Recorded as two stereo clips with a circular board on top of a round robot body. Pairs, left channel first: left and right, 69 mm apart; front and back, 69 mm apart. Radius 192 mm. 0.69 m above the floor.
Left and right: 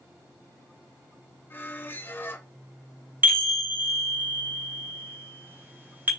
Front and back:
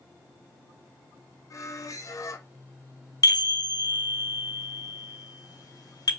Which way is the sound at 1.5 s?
35° left.